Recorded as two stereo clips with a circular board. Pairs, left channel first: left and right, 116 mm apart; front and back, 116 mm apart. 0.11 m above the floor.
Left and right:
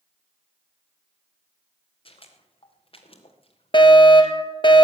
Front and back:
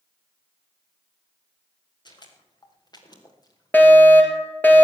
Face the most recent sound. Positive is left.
turn(degrees=70)